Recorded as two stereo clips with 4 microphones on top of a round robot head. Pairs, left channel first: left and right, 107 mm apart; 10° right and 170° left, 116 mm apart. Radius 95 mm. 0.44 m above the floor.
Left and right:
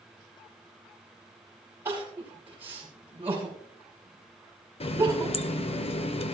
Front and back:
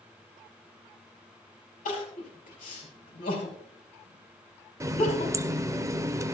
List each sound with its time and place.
1.9 s crying: 15° right, 4.5 m
4.8 s a running tap: 110° left, 0.9 m